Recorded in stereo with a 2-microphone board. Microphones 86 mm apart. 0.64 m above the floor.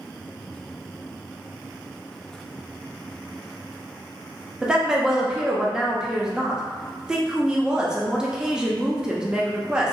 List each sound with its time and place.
4.6 s a woman speaking: 10° right (ahead or behind), 0.5 m